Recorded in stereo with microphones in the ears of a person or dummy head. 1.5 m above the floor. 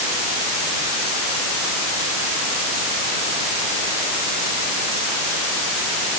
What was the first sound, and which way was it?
Only background noise.